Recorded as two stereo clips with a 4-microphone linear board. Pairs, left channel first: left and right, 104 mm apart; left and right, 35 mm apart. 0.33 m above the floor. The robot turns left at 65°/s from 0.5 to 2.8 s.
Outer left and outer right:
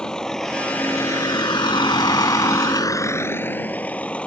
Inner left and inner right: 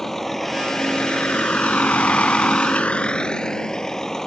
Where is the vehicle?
10° left (ahead or behind).